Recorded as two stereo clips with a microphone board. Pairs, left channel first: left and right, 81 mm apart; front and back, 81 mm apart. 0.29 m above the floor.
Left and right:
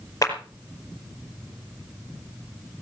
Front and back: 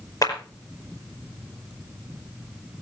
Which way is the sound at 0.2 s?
40° left.